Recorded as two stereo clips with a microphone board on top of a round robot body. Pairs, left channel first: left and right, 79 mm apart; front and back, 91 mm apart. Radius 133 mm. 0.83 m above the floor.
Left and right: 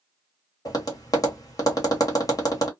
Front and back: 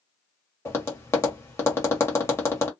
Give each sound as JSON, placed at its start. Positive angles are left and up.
{"t": 0.7, "sound": "tapping", "azimuth_deg": 60, "distance_m": 1.4}